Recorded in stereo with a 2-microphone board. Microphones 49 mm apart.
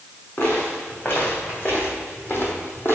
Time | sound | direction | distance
0.4 | footsteps | 45° left (ahead or behind) | 3 m